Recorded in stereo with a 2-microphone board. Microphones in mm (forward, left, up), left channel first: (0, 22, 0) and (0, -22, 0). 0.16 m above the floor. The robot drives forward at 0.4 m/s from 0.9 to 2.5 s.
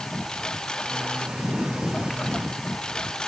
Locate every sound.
0.0 s a lawn mower: 15° left (ahead or behind)